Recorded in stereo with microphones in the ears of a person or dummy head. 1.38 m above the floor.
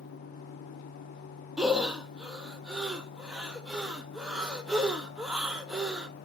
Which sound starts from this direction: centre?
Breathing, at 1.6 s.